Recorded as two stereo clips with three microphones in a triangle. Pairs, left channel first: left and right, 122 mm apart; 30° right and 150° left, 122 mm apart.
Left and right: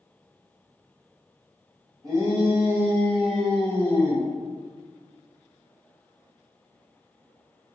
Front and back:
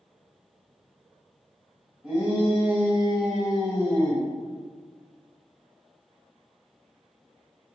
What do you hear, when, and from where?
2.0 s a shout: 140° right, 1.9 m; by 4.3 s 50° left, 1.6 m